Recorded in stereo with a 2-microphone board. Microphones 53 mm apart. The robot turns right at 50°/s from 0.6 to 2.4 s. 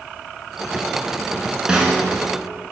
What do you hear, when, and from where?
1.7 s a snare drum: 15° right (ahead or behind), 0.9 m; by 2.1 s 5° left (ahead or behind), 0.9 m